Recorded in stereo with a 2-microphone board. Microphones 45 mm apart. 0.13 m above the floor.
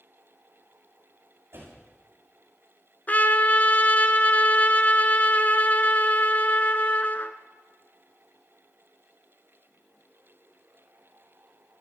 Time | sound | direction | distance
1.5 | a door slam | 65° right (ahead or behind) | 7.5 m
3.1 | a trumpet | 40° left (ahead or behind) | 0.8 m